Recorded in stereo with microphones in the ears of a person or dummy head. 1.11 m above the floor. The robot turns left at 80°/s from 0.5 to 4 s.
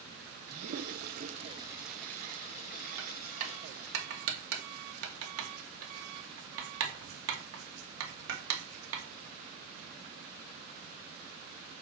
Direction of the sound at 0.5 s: 45° right (ahead or behind).